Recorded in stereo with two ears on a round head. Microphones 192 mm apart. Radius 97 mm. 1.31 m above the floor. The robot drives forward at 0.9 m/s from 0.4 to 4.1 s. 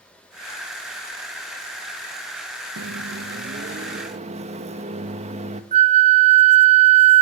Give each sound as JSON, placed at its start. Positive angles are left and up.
{"t": 2.8, "sound": "a microwave", "side_deg": -70, "distance_m": 1.0}
{"t": 5.7, "sound": "a flute", "side_deg": -30, "distance_m": 1.0}